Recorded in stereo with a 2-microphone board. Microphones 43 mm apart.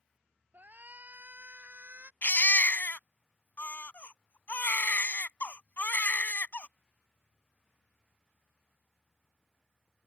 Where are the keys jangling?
No keys jangling in this recording.